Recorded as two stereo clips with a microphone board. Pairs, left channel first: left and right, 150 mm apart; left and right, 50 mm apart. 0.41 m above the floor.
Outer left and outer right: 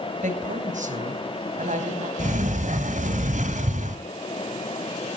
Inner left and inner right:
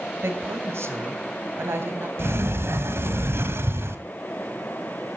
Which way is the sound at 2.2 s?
60° right (ahead or behind).